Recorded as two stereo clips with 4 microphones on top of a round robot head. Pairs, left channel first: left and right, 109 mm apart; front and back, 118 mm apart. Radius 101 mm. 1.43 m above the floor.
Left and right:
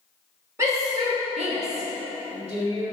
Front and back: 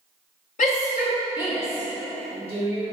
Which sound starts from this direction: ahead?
A shout, at 0.6 s.